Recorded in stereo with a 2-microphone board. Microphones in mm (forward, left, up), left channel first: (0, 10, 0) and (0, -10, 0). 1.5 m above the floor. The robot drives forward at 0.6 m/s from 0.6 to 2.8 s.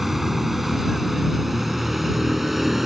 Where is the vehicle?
5° right (ahead or behind).